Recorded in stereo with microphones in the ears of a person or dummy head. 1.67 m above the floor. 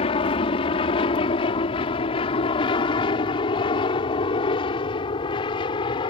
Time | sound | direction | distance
0.0 | an aircraft | 30° left (ahead or behind) | ?